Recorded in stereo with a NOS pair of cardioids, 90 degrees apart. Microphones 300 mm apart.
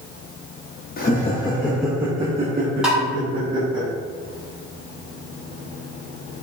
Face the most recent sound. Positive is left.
turn(degrees=-5)